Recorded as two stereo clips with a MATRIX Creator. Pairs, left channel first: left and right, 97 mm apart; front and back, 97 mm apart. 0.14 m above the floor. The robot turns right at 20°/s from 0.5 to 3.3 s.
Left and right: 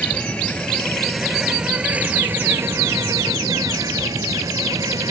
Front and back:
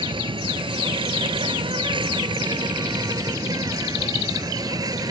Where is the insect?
165° left; by 5.1 s 135° right.